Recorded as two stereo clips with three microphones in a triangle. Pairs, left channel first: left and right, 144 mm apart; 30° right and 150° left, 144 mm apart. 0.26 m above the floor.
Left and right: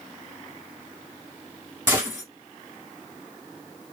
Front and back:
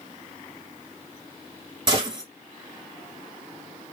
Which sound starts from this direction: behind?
A gunshot, at 1.9 s.